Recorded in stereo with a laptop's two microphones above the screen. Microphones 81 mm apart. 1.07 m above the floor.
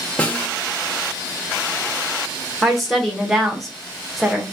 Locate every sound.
0.2 s a snare drum: 15° left (ahead or behind), 0.8 m
2.6 s a woman speaking: centre (ahead or behind), 0.8 m